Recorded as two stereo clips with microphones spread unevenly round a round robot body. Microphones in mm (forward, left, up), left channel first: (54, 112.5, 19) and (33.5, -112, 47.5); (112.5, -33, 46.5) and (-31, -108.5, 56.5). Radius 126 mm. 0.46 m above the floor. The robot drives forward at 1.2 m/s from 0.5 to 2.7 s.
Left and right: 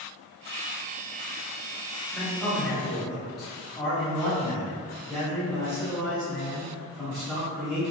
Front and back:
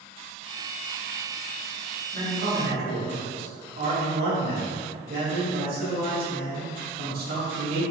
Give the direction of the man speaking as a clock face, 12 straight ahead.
6 o'clock.